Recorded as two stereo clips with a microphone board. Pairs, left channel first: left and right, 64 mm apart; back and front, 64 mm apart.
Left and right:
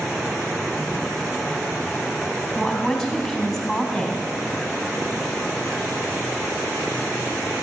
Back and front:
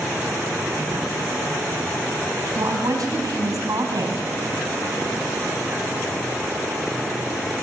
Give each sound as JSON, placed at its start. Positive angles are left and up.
{"t": 2.5, "sound": "a woman speaking", "azimuth_deg": 5, "distance_m": 3.5}